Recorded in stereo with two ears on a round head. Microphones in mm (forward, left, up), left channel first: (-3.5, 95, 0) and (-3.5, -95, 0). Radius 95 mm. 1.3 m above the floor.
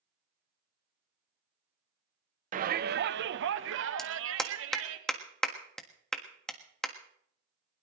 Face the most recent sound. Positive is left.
turn(degrees=5)  # may be behind; listen again after turning